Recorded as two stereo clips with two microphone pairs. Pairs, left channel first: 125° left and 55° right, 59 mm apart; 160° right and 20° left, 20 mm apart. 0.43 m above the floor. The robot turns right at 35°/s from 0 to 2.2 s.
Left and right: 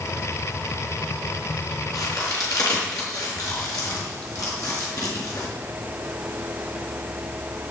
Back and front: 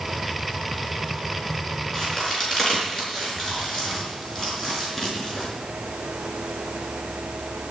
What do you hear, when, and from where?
1.9 s a crack: 120° left, 5 m; by 5.5 s 130° left, 5 m